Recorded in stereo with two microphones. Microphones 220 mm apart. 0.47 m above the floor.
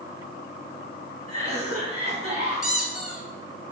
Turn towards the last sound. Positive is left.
turn(degrees=-5)  # may be behind; listen again after turning